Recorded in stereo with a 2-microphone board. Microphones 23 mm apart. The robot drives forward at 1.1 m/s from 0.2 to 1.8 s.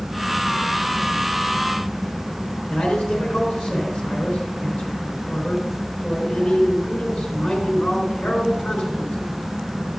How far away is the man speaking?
About 4.5 m.